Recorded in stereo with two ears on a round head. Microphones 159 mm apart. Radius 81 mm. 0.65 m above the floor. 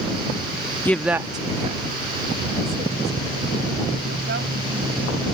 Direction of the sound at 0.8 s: 10° left (ahead or behind).